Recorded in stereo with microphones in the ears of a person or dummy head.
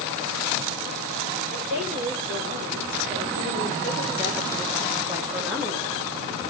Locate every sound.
1.5 s a woman speaking: 45° right (ahead or behind), 4 m; by 6.5 s 10° left (ahead or behind), 2 m